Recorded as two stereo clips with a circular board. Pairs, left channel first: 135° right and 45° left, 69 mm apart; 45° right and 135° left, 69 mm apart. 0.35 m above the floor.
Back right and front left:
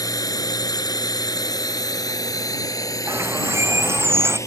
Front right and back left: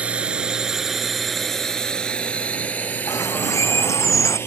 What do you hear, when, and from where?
0.0 s a drone: 155° right; by 4.5 s 95° right
3.1 s a bird: 5° right